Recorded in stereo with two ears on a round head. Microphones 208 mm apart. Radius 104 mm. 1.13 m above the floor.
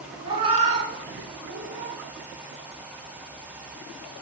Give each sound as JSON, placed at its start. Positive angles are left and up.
{"t": 0.2, "sound": "a cat meowing", "side_deg": -20, "distance_m": 1.7}